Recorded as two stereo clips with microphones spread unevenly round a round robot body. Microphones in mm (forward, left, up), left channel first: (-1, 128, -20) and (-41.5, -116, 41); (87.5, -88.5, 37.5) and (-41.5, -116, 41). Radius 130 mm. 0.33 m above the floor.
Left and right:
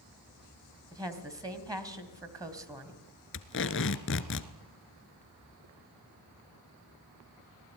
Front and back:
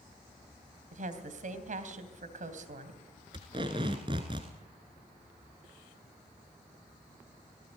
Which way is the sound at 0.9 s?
175° left.